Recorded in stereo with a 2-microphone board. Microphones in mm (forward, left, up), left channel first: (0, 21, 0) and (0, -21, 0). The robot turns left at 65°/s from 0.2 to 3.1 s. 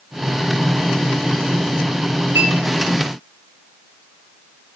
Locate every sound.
2.4 s a clink: 70° right (ahead or behind), 4.5 m; by 2.5 s 60° right (ahead or behind), 4.5 m